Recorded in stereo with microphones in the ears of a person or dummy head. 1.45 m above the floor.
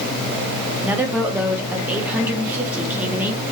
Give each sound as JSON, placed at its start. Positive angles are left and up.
{"t": 0.8, "sound": "a woman speaking", "side_deg": -15, "distance_m": 1.1}